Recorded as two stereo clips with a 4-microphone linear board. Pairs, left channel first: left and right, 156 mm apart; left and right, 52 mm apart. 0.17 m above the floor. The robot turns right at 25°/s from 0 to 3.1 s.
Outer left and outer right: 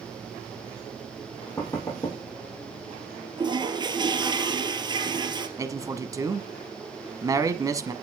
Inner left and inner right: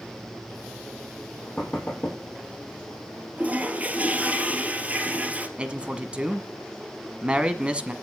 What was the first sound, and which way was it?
Knocking, 10° left (ahead or behind).